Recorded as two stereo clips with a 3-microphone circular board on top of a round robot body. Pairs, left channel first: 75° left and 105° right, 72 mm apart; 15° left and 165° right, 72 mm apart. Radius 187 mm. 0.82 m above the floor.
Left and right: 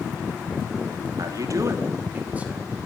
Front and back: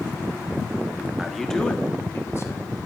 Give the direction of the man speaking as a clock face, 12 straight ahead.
3 o'clock.